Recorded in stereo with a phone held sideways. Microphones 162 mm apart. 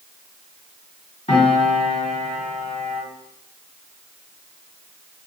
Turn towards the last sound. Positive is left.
turn(degrees=45)  # may be behind; listen again after turning